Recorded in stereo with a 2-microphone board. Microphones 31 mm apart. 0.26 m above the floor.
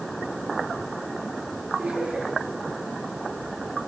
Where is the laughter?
40° right (ahead or behind), 6 m.